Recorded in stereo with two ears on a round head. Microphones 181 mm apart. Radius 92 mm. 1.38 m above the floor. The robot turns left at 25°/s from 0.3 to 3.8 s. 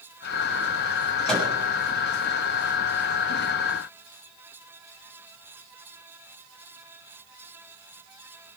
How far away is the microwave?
About 7 m.